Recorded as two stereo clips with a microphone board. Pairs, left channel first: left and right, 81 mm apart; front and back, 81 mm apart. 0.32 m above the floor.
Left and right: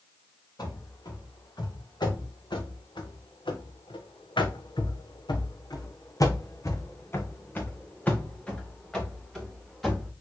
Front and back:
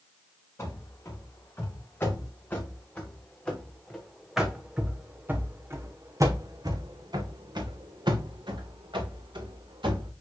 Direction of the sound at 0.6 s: 55° left.